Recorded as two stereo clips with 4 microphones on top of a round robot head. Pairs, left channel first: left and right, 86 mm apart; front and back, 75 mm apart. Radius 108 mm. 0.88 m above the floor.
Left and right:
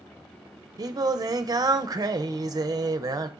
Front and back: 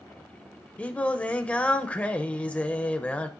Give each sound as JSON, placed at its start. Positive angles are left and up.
{"t": 0.8, "sound": "singing", "azimuth_deg": -70, "distance_m": 0.6}